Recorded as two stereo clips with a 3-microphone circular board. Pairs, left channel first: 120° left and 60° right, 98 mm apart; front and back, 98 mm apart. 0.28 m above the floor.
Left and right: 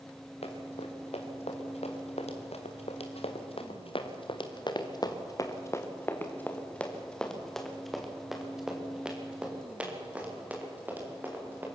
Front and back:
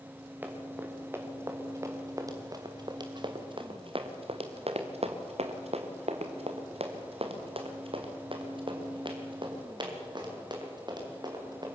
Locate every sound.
0.4 s running footsteps: 110° left, 4.5 m; by 11.7 s 130° right, 6.5 m